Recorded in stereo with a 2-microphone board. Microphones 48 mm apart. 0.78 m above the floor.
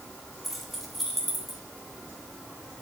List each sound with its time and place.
0.4 s keys jangling: centre (ahead or behind), 3 m; by 1.6 s 5° left (ahead or behind), 1.8 m